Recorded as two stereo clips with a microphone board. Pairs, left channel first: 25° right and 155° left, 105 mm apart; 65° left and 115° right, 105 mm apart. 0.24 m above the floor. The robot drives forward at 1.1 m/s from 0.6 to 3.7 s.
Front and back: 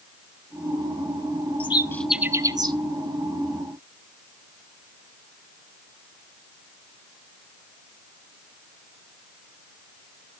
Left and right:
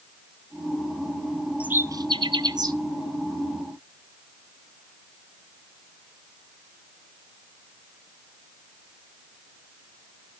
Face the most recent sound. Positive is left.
turn(degrees=-170)